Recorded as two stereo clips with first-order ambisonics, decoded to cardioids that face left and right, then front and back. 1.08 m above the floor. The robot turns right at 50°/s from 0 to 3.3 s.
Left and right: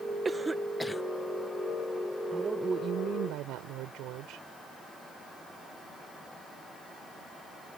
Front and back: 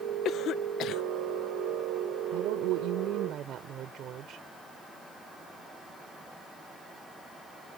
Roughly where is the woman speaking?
Behind.